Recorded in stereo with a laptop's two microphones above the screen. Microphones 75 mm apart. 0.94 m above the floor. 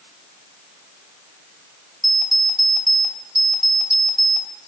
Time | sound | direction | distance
2.0 | an alarm clock | centre (ahead or behind) | 2.5 m